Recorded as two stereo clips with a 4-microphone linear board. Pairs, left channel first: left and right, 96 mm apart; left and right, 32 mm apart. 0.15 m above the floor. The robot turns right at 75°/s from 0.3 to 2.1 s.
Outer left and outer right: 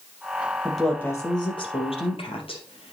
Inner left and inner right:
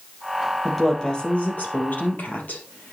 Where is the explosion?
I don't hear an explosion.